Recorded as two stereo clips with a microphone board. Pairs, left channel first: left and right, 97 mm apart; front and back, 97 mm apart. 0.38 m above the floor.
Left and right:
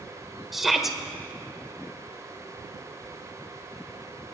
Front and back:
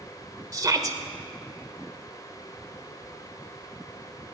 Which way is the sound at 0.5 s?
175° right.